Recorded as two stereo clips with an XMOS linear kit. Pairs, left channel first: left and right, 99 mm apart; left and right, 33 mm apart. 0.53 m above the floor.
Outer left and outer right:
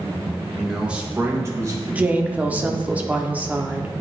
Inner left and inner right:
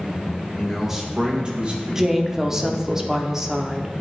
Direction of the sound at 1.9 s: 15° right (ahead or behind).